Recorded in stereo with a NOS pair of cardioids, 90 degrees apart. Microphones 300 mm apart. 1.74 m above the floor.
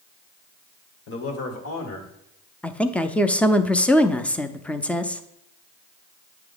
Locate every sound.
1.1 s a man speaking: 45° left, 1.4 m; by 2.1 s 65° left, 2.0 m
2.6 s a woman speaking: 5° left, 0.5 m